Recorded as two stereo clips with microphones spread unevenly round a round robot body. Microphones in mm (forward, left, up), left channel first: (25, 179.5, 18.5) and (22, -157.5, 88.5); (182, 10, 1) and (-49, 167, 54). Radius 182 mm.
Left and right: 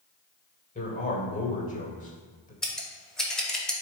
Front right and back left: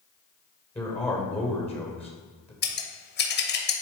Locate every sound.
0.8 s a man speaking: 40° left, 2 m
2.6 s scissors: 10° left, 1.1 m